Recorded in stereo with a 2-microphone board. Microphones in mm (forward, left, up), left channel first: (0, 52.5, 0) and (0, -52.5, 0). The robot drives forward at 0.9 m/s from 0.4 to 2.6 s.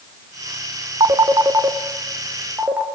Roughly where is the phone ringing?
Right.